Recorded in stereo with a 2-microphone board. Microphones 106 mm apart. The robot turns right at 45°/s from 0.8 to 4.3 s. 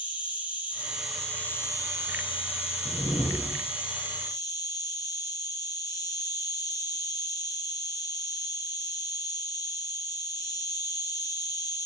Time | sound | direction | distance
0.0 | an insect | 15° right | 1.4 m
2.9 | a whoosh | 135° left | 1.0 m